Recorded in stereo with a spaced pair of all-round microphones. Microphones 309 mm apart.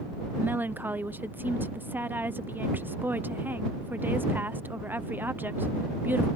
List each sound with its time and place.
0.4 s a woman speaking: 5° right (ahead or behind)